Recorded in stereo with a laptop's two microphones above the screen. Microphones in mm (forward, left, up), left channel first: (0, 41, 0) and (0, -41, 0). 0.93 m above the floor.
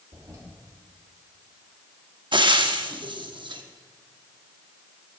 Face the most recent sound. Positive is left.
turn(degrees=-70)  # may be behind; listen again after turning